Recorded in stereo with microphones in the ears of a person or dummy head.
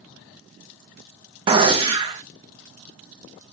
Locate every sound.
1.5 s a gunshot: 30° right (ahead or behind), 0.5 m